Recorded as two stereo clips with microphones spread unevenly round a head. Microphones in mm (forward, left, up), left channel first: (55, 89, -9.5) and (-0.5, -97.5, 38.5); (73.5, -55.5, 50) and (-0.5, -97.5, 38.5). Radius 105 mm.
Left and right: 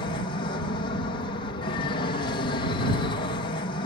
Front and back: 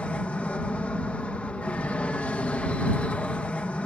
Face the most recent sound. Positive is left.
turn(degrees=110)